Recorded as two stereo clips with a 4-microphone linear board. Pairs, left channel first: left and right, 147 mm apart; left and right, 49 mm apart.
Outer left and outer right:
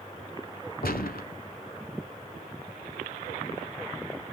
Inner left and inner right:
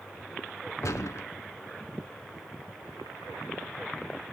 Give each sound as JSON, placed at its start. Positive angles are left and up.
{"t": 0.8, "sound": "a gunshot", "side_deg": 80, "distance_m": 1.3}